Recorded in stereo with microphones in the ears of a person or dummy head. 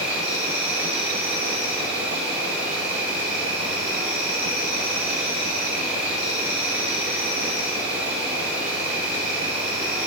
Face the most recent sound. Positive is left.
turn(degrees=-5)  # may be behind; listen again after turning